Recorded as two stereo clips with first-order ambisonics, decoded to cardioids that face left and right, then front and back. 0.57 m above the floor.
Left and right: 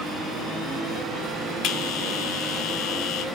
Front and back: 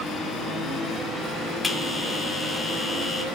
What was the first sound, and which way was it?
A bell, 80° left.